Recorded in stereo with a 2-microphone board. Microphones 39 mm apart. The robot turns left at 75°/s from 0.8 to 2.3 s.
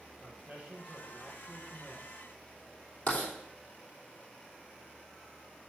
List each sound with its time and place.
0.2 s a man speaking: 140° right, 3.5 m; by 2.1 s 125° left, 3.5 m
3.1 s writing: 50° left (ahead or behind), 3 m